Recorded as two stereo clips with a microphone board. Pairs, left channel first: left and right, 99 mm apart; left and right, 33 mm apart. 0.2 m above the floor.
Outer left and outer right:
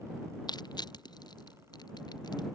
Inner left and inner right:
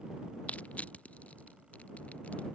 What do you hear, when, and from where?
0.5 s crushing: 45° left (ahead or behind)